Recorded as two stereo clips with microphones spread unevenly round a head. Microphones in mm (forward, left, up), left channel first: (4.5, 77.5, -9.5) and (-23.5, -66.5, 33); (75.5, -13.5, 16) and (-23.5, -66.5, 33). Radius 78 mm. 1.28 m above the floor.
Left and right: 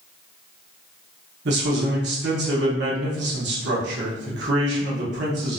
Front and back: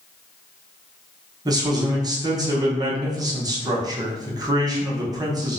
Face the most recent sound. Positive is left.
turn(degrees=-95)